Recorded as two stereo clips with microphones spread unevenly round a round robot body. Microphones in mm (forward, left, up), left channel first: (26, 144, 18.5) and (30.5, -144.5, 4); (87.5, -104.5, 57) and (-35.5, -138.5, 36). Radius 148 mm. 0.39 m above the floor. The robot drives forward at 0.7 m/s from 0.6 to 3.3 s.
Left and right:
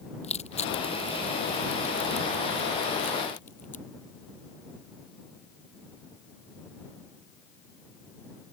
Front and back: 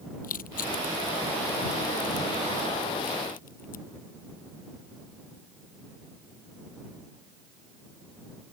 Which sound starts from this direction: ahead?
Crushing, at 0.2 s.